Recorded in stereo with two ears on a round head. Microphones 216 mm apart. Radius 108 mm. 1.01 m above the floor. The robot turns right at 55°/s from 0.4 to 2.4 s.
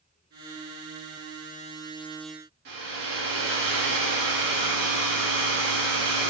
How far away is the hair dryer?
About 1.6 m.